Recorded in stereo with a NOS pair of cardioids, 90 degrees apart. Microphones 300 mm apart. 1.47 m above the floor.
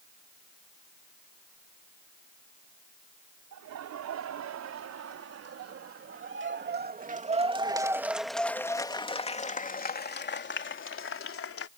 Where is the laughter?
70° right; by 11.7 s 50° left.